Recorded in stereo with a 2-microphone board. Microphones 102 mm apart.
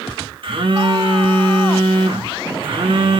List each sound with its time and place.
0.4 s a phone buzzing: 60° right (ahead or behind), 2 m